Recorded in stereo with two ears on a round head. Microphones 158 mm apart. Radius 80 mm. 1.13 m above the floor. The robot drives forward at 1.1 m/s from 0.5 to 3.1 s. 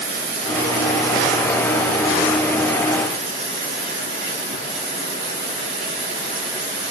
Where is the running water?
75° right (ahead or behind), 2.5 m; by 6.9 s 40° right (ahead or behind), 4.5 m.